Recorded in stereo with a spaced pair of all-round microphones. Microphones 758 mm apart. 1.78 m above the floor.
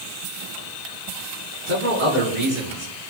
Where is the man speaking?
70° right (ahead or behind), 5 m.